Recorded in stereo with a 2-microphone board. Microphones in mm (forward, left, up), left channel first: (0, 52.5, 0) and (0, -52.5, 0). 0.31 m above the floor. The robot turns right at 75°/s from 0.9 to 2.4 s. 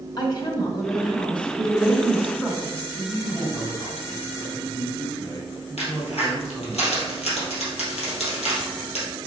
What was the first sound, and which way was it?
A woman speaking, 50° left.